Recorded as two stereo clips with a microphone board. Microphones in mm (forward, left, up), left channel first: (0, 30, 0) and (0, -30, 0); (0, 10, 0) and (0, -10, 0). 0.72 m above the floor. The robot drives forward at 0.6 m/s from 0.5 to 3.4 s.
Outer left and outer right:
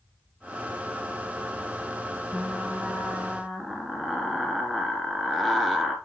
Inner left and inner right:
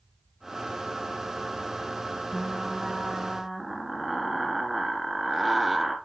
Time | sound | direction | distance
2.3 | frying | 5° left (ahead or behind) | 1.4 m